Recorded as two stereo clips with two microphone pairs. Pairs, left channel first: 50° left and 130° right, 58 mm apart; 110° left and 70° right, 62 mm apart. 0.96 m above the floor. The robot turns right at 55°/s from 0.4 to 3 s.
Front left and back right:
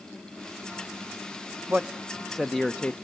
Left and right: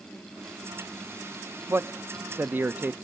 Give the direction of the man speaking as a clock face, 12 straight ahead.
3 o'clock.